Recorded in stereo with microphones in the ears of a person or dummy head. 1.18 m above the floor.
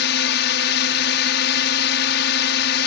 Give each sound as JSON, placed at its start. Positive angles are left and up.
{"t": 0.0, "sound": "a drone", "side_deg": 65}